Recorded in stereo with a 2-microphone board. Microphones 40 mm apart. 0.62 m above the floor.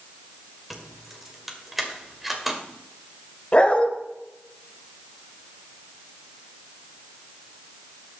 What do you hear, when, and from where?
0.7 s keys jangling: 5° right (ahead or behind), 1.8 m
3.5 s a dog barking: 30° left (ahead or behind), 1.3 m